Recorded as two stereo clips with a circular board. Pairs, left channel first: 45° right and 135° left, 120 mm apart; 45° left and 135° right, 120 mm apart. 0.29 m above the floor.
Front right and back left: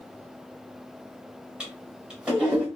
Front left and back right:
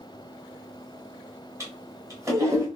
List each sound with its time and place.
1.6 s a toilet flushing: 155° right, 1.2 m